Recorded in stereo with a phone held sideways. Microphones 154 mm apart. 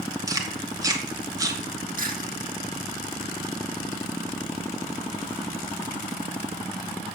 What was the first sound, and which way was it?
Chewing, 25° right (ahead or behind).